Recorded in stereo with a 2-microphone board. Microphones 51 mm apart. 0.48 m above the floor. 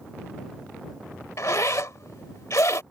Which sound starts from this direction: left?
A zipper, at 1.4 s.